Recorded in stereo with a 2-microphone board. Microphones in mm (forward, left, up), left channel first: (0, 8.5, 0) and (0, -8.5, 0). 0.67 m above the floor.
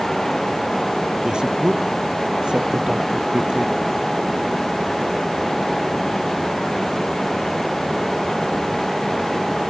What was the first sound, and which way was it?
A man speaking, 60° right (ahead or behind).